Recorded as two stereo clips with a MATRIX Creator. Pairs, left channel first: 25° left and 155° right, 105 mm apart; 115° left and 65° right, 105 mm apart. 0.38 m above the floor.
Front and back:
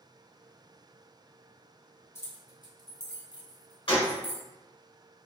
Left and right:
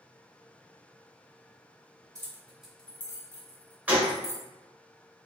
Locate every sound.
2.1 s keys jangling: 30° right, 0.6 m; by 4.4 s 70° left, 1.5 m
3.9 s a gunshot: 5° left, 0.9 m